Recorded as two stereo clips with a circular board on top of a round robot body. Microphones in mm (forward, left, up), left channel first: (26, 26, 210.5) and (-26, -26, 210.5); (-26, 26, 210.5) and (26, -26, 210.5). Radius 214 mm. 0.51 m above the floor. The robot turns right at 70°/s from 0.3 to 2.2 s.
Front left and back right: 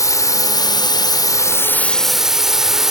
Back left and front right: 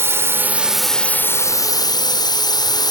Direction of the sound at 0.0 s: 10° left.